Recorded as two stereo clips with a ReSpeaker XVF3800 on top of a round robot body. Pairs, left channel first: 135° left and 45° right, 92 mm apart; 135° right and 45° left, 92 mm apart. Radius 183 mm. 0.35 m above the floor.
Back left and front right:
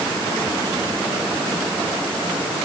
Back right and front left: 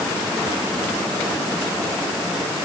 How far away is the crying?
No crying in this recording.